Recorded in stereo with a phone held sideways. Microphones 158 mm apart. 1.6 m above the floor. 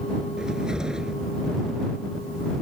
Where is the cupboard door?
5° right (ahead or behind).